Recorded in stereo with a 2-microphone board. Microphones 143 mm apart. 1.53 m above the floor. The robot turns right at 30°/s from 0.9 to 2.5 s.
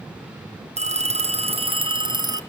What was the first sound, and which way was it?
A phone ringing, 80° right.